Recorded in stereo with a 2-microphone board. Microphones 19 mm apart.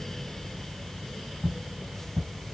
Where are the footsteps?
45° left (ahead or behind), 1.7 m.